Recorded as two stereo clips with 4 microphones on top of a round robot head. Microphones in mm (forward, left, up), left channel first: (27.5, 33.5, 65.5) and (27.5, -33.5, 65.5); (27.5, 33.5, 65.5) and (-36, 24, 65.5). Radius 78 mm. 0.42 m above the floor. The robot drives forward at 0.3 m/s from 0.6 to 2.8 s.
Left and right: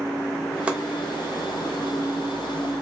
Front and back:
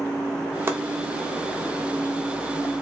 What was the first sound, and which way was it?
Chopping, 150° right.